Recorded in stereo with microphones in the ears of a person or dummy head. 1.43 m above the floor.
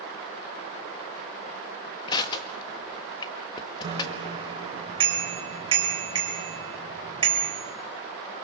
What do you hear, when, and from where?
2.1 s crushing: 25° left (ahead or behind), 1.8 m
3.8 s a bicycle bell: 25° right (ahead or behind), 5 m